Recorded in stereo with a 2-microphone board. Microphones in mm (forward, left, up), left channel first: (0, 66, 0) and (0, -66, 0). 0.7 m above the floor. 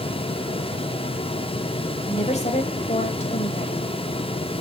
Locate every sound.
2.1 s a woman speaking: 55° left (ahead or behind), 3 m